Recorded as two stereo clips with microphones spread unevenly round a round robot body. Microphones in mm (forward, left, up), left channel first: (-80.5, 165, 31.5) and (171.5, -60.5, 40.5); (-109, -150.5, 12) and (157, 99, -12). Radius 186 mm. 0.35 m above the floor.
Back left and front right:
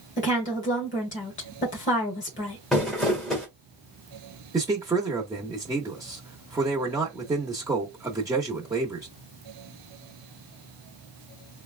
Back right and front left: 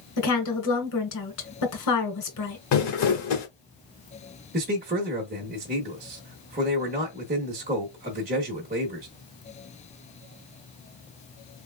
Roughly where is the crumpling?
Behind right.